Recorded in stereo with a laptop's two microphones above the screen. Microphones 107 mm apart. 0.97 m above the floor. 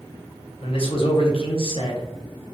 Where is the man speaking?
55° left (ahead or behind), 0.6 m.